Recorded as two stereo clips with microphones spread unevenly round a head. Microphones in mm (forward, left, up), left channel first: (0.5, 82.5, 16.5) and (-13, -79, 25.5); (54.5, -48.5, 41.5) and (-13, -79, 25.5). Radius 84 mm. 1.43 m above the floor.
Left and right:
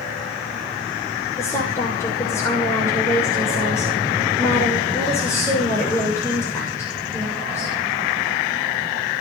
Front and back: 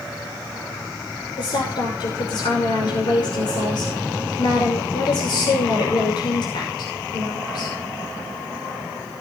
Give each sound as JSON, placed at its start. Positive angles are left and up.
{"t": 1.4, "sound": "a woman speaking", "azimuth_deg": 10, "distance_m": 6.5}